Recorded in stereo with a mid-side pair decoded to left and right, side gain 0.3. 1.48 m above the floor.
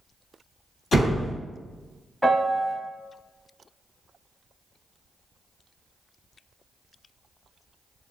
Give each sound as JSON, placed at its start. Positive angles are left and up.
{"t": 0.9, "sound": "a door slam", "azimuth_deg": 70, "distance_m": 1.2}
{"t": 2.2, "sound": "a piano", "azimuth_deg": 10, "distance_m": 0.7}